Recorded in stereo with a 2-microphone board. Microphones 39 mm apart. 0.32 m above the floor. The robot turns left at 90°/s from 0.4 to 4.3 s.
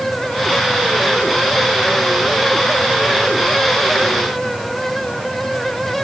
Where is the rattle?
I don't hear a rattle.